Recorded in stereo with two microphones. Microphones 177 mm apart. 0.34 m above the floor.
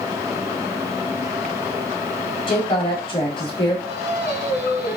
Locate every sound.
2.5 s a woman speaking: 30° left (ahead or behind), 2 m
3.9 s singing: 65° left (ahead or behind), 1.3 m